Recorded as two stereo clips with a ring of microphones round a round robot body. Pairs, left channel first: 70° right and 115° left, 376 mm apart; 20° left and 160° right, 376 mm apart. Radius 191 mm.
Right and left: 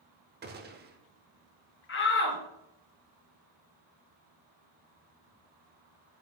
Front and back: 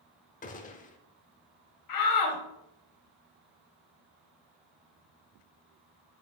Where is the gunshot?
75° left, 0.8 m.